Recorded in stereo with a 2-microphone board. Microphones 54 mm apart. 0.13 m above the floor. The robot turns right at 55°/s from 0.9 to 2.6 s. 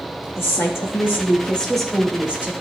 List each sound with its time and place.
0.4 s a woman speaking: 125° left, 3.5 m; by 2.5 s 145° right, 3.5 m